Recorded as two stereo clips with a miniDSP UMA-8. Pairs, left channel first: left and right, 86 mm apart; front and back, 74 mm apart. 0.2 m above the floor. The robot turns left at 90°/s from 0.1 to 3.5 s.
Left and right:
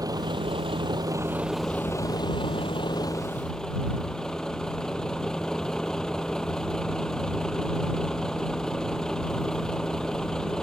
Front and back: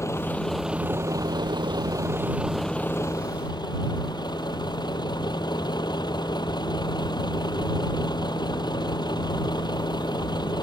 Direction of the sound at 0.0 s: 45° right.